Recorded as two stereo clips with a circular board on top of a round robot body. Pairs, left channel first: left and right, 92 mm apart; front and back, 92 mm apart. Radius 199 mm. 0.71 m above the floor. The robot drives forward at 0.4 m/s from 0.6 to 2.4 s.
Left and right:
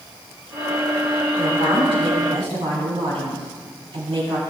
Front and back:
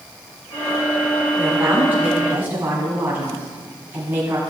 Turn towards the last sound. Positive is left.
turn(degrees=-110)